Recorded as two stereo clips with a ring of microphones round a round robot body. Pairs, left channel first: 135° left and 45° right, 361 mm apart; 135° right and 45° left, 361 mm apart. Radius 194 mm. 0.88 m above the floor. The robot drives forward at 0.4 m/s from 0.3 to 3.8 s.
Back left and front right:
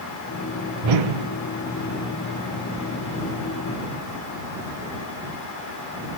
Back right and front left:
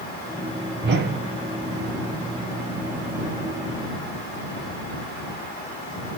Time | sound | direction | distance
0.8 | a whoosh | 15° right | 0.6 m